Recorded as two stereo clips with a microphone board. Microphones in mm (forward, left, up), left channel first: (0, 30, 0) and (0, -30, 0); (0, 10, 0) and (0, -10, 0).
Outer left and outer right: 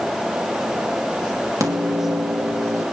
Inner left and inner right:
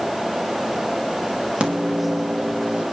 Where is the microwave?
65° right (ahead or behind), 2.5 m.